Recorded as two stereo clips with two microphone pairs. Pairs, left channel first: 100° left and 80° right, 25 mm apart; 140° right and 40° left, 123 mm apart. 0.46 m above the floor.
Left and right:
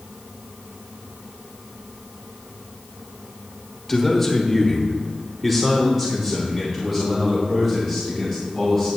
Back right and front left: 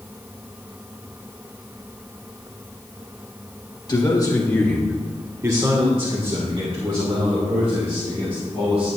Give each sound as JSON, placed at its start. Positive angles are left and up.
{"t": 3.9, "sound": "a man speaking", "azimuth_deg": 175, "distance_m": 1.4}